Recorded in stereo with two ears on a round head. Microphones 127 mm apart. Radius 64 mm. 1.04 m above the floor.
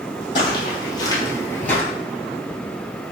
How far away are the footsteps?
About 1.9 m.